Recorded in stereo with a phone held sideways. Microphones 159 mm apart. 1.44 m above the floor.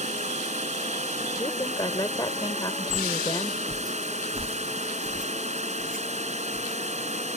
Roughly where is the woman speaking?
Left.